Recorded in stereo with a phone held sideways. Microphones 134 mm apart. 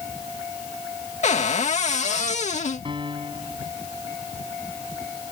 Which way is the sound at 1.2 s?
60° left (ahead or behind).